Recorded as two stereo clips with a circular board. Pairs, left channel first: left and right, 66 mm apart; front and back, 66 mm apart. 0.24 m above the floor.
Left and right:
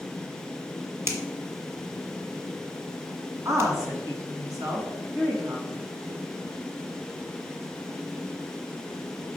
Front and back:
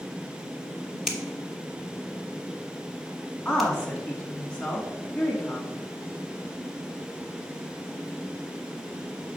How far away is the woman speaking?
About 1.8 m.